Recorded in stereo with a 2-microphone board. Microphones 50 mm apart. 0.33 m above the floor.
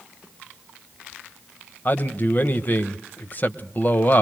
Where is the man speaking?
35° left (ahead or behind), 1.3 m.